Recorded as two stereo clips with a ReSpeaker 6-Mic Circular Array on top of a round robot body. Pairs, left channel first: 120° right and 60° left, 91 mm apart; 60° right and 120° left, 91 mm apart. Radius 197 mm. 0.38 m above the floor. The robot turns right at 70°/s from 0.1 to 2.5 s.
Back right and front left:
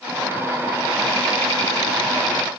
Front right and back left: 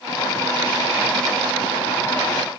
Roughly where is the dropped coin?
I don't hear a dropped coin.